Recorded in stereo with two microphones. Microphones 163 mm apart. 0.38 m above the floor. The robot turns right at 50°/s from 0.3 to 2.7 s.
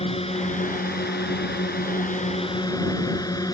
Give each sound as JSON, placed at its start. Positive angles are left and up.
{"t": 0.0, "sound": "a drone", "azimuth_deg": 40}